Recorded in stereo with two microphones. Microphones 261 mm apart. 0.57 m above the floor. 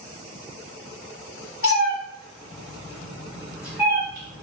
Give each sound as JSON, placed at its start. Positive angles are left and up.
{"t": 1.6, "sound": "a cat meowing", "side_deg": 55, "distance_m": 0.7}